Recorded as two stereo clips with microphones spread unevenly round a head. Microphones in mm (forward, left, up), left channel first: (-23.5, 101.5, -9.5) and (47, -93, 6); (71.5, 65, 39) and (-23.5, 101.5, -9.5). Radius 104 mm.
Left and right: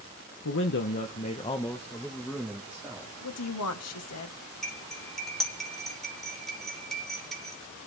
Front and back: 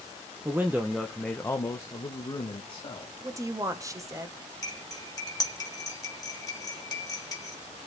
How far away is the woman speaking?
About 2.0 m.